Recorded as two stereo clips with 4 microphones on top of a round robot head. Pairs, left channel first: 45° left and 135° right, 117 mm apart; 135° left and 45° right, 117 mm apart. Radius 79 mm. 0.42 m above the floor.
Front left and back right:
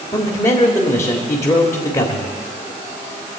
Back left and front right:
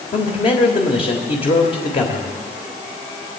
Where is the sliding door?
I don't hear a sliding door.